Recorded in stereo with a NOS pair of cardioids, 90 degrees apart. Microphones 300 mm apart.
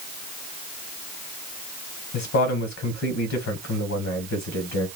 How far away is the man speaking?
About 1.1 m.